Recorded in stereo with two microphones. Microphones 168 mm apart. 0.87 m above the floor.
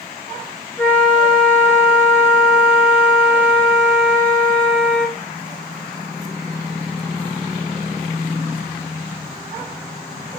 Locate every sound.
0.8 s a flute: 10° left (ahead or behind), 1.6 m